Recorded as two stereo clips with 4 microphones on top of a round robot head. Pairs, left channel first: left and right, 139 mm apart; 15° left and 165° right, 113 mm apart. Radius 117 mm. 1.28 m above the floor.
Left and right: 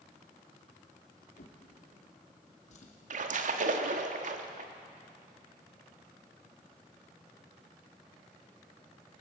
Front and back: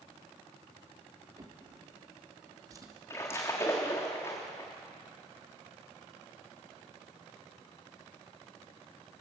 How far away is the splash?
About 1.5 m.